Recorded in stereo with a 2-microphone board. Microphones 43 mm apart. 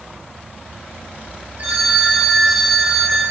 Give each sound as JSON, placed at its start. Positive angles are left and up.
{"t": 1.6, "sound": "a phone ringing", "side_deg": -45, "distance_m": 3.0}